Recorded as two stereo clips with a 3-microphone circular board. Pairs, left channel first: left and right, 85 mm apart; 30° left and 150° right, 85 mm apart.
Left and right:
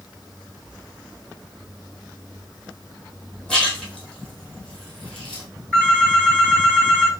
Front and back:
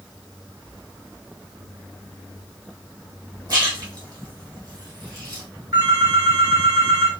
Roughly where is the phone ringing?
Behind.